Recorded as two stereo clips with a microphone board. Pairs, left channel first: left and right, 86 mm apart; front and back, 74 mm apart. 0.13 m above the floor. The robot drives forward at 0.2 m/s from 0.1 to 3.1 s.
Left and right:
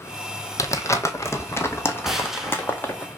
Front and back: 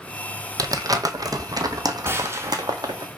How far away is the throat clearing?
I don't hear throat clearing.